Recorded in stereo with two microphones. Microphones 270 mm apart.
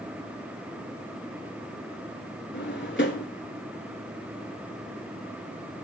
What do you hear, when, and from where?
2.5 s a drawer: 45° left (ahead or behind), 0.9 m